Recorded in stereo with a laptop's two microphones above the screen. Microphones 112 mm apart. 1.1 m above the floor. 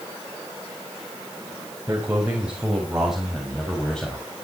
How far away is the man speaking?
About 5.5 m.